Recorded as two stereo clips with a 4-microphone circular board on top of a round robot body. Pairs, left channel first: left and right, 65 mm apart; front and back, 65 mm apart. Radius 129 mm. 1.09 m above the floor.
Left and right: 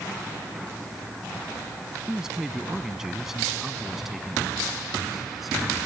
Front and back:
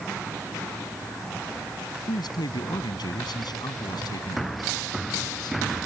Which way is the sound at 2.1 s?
10° right.